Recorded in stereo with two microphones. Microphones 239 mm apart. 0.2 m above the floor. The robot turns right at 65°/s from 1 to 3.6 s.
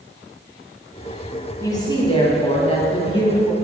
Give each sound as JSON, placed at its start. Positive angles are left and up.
{"t": 1.6, "sound": "a woman speaking", "side_deg": 15, "distance_m": 1.3}